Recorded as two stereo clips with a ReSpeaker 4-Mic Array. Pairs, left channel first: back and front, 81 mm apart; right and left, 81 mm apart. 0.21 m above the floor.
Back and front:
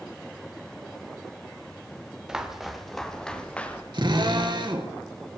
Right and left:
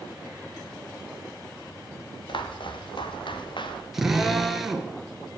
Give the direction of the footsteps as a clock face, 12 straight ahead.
3 o'clock.